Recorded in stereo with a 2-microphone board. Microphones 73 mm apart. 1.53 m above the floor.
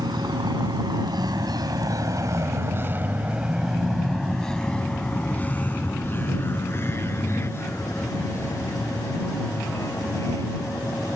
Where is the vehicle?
85° right; by 11.2 s 45° left (ahead or behind).